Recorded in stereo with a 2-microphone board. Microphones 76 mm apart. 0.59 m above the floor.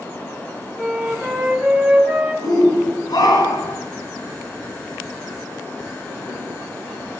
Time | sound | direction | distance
0.8 | a flute | 10° right (ahead or behind) | 4 m
2.4 | a shout | 60° left (ahead or behind) | 5.5 m